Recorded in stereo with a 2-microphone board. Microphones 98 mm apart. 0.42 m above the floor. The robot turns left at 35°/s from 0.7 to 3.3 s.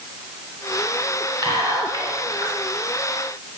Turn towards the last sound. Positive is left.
turn(degrees=-175)